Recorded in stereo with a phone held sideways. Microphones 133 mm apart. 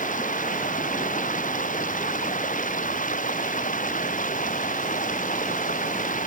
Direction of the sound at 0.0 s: 80° left.